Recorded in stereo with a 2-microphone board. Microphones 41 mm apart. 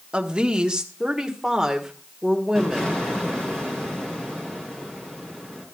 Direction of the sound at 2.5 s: 15° left (ahead or behind).